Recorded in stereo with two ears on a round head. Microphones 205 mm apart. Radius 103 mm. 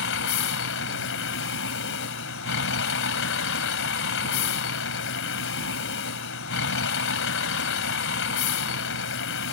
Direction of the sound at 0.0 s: 60° left (ahead or behind).